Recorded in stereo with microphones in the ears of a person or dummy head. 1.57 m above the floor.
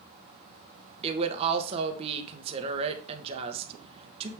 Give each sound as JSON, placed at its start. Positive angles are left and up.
{"t": 1.0, "sound": "a woman speaking", "side_deg": -30, "distance_m": 1.6}